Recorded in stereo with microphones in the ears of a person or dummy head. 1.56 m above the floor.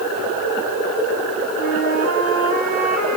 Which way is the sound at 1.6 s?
55° right (ahead or behind).